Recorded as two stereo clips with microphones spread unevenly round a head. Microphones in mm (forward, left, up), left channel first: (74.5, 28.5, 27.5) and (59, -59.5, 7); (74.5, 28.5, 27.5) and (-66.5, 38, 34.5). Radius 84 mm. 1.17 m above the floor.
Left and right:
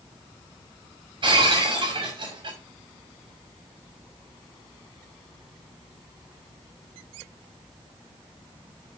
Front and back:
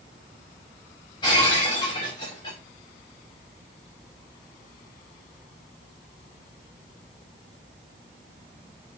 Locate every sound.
1.2 s breaking glass: 70° right, 8 m